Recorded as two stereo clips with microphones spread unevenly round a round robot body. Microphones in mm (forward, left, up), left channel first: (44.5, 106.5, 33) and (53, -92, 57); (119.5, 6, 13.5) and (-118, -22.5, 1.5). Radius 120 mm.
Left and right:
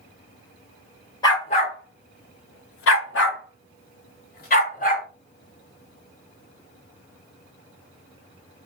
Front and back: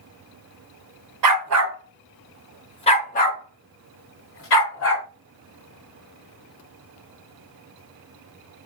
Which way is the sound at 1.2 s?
170° left.